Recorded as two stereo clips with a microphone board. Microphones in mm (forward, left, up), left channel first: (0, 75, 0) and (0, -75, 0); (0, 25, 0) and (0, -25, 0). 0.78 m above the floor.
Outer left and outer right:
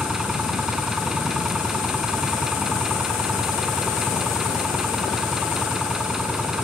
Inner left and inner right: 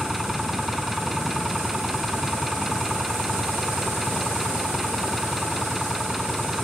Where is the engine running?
5° right (ahead or behind).